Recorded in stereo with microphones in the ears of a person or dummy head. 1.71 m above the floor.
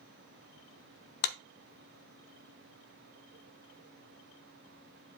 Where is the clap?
50° left (ahead or behind), 0.6 m.